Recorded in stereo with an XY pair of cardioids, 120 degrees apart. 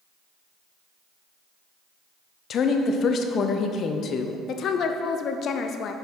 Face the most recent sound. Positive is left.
turn(degrees=55)